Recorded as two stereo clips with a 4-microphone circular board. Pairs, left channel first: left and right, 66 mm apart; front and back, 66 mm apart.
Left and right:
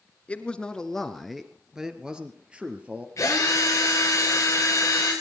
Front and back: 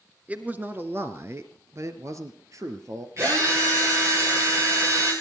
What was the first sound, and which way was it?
A man speaking, 140° left.